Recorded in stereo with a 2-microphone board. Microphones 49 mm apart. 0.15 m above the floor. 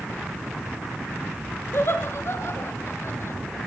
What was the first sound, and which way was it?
Laughter, 55° left (ahead or behind).